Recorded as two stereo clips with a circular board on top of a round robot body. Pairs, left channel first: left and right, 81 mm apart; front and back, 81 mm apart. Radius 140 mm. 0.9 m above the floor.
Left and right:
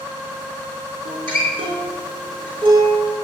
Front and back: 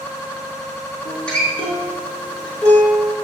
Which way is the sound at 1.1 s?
80° right.